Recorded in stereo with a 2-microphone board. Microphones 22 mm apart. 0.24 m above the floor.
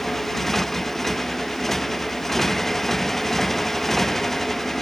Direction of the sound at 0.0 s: 10° left (ahead or behind).